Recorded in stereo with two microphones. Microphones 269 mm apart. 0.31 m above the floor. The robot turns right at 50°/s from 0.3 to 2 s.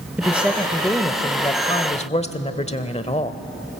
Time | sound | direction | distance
0.2 | a woman speaking | 5° right (ahead or behind) | 1.0 m